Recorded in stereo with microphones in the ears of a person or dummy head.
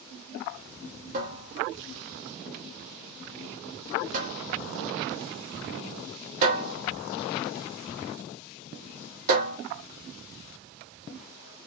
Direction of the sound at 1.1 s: 35° right (ahead or behind).